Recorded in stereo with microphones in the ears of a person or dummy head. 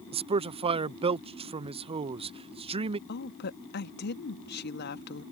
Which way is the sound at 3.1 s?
65° left (ahead or behind).